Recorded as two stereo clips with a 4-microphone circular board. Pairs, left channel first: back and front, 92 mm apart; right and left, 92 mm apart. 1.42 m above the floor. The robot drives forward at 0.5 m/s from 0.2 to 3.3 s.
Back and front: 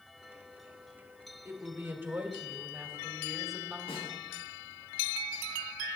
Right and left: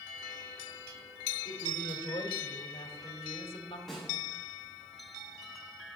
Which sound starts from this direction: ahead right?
A woman speaking, at 1.4 s.